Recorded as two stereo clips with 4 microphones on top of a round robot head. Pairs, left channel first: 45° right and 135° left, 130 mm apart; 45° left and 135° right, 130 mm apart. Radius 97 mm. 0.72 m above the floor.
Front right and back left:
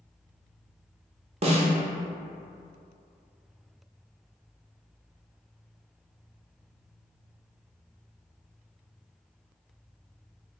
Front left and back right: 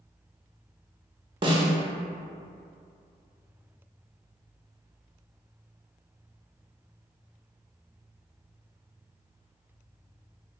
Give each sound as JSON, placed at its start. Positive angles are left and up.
{"t": 1.4, "sound": "a snare drum", "azimuth_deg": 175, "distance_m": 0.7}